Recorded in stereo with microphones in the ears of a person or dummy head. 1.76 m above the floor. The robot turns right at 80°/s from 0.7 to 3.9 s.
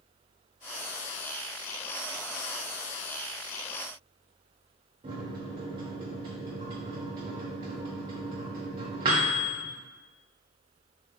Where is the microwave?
20° right (ahead or behind), 0.6 m.